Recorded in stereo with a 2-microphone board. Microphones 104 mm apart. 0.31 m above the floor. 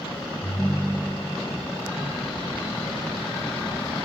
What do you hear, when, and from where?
0.4 s a ringtone: 5° left (ahead or behind), 1.0 m